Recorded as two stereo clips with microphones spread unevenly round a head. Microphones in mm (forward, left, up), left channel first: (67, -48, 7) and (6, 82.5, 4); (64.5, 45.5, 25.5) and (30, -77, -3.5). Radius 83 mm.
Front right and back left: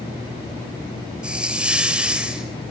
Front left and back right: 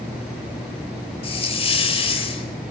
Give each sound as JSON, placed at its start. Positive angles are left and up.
{"t": 1.2, "sound": "a hiss", "azimuth_deg": 30, "distance_m": 4.0}